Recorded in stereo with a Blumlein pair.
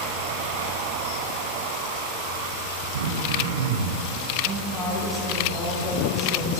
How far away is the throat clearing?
About 0.9 m.